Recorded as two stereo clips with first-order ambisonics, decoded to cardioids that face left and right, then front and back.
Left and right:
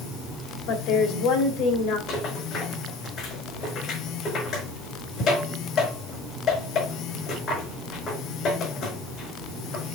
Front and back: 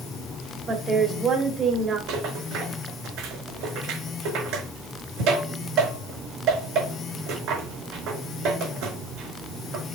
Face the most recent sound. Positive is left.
turn(degrees=145)